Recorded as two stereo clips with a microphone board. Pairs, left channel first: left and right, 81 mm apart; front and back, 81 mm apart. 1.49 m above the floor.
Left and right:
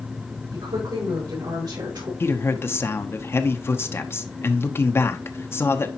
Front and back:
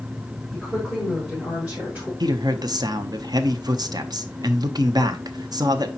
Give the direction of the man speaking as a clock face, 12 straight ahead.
7 o'clock.